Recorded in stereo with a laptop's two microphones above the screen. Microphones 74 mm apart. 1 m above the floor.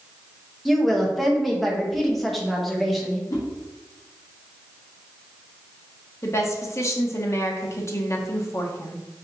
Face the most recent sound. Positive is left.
turn(degrees=40)  # may be behind; listen again after turning